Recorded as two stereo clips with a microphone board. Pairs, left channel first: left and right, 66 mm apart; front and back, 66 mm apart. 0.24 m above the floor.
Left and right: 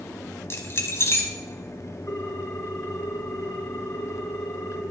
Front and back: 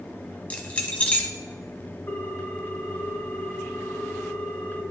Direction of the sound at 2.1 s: 40° left.